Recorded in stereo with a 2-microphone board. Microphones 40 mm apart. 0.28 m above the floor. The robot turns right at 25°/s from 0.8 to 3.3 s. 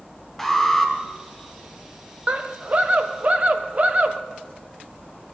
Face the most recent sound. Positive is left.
turn(degrees=-30)  # may be behind; listen again after turning